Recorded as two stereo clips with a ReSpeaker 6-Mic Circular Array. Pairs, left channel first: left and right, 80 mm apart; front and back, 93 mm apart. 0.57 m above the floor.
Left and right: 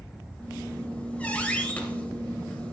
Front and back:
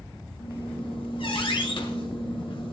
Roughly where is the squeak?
Ahead.